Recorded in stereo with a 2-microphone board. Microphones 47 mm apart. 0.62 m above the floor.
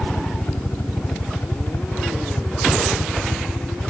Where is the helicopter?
55° left (ahead or behind); by 3.9 s 65° left (ahead or behind).